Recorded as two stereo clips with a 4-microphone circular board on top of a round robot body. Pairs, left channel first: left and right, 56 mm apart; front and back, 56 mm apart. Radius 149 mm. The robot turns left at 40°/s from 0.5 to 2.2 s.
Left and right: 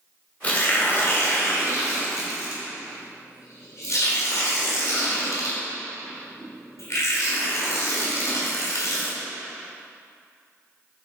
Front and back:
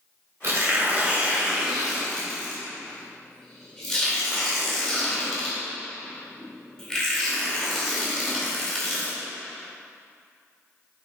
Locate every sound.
0.4 s tearing paper: 150° left, 2.5 m; by 9.2 s 85° left, 2.5 m